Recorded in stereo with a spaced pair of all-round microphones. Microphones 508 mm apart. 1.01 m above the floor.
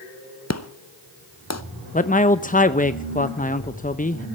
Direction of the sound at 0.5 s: 30° left (ahead or behind).